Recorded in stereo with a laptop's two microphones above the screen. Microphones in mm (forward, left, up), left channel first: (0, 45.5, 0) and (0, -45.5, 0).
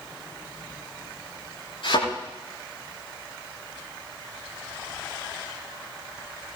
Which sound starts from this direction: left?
A thud, at 1.8 s.